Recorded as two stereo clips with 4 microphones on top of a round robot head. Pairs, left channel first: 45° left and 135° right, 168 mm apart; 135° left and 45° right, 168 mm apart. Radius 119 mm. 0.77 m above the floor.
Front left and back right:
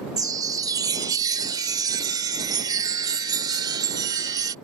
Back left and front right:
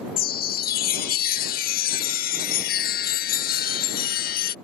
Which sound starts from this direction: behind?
A chime, at 0.2 s.